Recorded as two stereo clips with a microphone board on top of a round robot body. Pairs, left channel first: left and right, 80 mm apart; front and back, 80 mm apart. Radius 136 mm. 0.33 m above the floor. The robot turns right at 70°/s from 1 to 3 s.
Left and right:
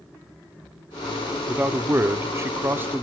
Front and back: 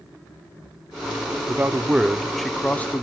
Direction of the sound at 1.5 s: 150° right.